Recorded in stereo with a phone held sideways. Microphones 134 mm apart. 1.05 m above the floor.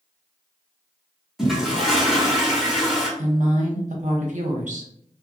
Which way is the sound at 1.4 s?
Centre (ahead or behind).